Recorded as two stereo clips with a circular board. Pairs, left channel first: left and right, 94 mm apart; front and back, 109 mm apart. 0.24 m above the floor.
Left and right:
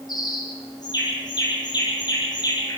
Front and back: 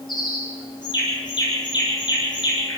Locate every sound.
0.1 s a bird: 45° left, 7 m